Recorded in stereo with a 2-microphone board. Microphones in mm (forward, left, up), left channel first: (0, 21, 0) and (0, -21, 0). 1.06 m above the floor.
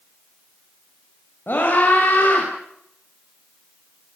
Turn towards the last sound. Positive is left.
turn(degrees=50)  # may be behind; listen again after turning